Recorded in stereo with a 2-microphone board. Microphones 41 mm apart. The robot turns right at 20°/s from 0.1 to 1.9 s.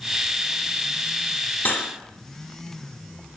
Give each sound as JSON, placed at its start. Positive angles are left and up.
{"t": 1.6, "sound": "cutlery clinking", "side_deg": 55, "distance_m": 1.1}